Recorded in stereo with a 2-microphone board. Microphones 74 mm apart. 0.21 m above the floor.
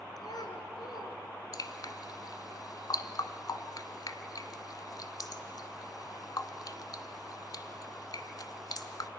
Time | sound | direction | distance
0.2 | a child speaking | 65° left (ahead or behind) | 2.5 m
1.5 | dripping | 60° left (ahead or behind) | 1.2 m